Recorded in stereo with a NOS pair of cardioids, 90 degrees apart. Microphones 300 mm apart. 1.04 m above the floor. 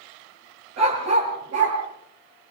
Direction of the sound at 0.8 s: 60° right.